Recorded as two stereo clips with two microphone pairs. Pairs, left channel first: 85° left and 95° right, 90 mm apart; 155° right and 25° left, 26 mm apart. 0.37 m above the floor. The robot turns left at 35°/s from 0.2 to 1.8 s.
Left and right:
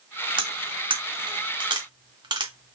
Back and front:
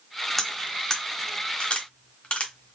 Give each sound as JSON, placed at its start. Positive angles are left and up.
{"t": 0.4, "sound": "cutlery clinking", "azimuth_deg": -75, "distance_m": 0.9}